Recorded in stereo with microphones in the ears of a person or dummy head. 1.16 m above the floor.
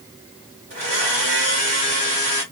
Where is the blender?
35° right (ahead or behind), 1.6 m.